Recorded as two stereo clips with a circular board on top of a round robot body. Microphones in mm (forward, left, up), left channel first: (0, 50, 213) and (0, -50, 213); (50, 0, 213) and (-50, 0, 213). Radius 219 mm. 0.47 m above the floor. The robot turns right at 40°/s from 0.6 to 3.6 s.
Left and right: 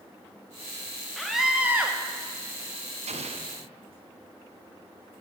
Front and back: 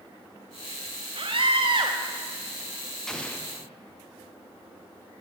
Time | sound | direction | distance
1.2 | a scream | 175° left | 1.0 m
3.1 | an explosion | 85° right | 0.9 m